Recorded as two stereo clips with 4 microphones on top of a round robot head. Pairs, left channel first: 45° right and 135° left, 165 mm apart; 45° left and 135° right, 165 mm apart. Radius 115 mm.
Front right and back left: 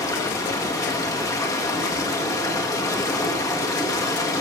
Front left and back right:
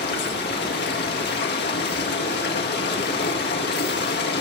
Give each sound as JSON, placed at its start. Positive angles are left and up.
{"t": 0.0, "sound": "running water", "azimuth_deg": 25, "distance_m": 1.9}